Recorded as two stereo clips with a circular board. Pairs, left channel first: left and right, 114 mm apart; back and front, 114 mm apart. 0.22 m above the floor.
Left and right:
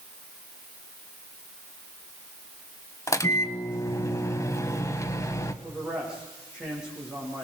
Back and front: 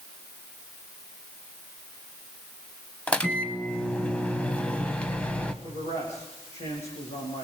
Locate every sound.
3.1 s a microwave: 110° left, 1.1 m
5.6 s a man speaking: 175° right, 8.5 m